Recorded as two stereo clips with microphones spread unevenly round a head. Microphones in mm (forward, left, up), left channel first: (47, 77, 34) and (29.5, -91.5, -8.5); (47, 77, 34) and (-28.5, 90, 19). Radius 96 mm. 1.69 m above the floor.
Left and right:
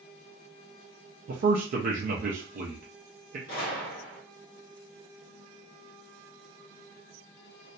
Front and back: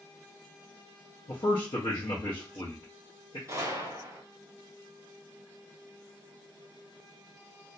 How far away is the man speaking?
About 0.5 m.